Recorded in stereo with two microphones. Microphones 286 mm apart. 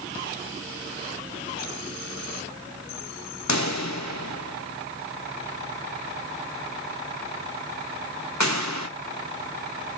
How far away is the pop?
About 2 m.